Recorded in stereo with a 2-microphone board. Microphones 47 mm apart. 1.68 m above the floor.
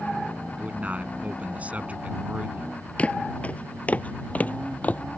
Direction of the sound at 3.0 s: 30° left (ahead or behind).